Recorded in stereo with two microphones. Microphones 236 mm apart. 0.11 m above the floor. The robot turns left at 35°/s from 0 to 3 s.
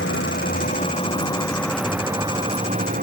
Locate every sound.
0.0 s a vehicle: 65° left; by 3.0 s 40° right